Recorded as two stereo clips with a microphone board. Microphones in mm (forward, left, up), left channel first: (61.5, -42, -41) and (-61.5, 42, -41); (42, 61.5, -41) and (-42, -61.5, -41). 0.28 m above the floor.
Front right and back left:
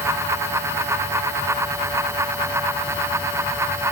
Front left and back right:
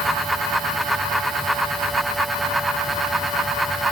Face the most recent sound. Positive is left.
No sound to turn to.